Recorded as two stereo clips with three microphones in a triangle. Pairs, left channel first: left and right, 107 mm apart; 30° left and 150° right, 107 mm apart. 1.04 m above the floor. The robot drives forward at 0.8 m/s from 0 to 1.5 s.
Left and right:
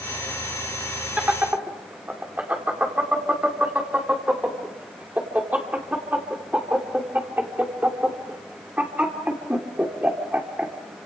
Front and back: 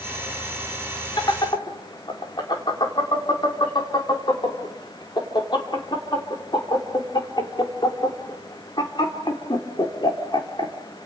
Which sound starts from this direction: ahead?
Laughter, at 1.2 s.